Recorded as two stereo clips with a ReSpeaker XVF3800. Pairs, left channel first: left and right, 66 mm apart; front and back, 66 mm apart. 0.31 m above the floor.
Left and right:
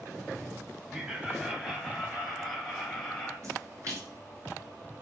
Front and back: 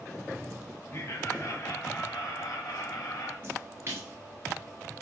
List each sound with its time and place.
0.9 s laughter: 15° right, 1.7 m; by 3.3 s 5° left, 3 m
3.4 s a splash: 125° right, 2.5 m